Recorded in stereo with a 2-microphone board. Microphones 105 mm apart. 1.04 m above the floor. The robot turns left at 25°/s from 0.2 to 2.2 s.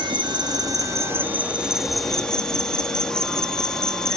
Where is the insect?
135° right, 1.3 m; by 4.2 s 175° left, 1.3 m.